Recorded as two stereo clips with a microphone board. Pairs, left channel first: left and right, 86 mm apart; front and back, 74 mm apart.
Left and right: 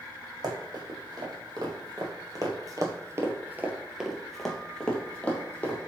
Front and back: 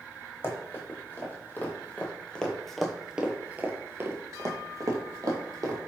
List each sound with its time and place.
0.4 s running footsteps: 55° right, 1.7 m; by 5.8 s 155° left, 1.4 m